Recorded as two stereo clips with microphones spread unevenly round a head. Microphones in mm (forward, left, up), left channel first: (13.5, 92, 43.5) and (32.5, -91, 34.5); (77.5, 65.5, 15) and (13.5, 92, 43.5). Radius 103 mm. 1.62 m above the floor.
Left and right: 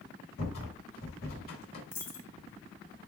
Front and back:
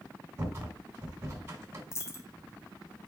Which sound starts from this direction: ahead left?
A dropped coin, at 1.9 s.